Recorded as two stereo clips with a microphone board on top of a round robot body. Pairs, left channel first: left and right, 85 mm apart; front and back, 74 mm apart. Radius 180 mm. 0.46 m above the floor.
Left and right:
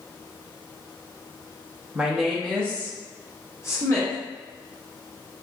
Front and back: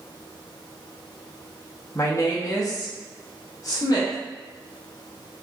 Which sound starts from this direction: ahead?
A woman speaking, at 1.9 s.